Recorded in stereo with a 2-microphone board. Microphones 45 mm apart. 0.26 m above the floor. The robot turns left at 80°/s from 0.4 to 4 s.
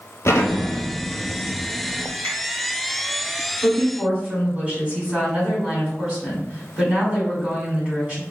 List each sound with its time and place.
0.2 s an explosion: 115° left, 1.0 m; by 2.1 s 25° right, 1.0 m
2.2 s a finger snap: 45° left (ahead or behind), 1.8 m; by 2.4 s 50° left (ahead or behind), 1.8 m
3.6 s a woman speaking: straight ahead, 1.8 m; by 8.2 s 30° right, 1.8 m